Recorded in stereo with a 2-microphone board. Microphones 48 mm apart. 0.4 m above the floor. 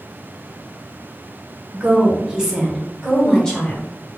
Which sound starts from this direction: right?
A woman speaking, at 1.7 s.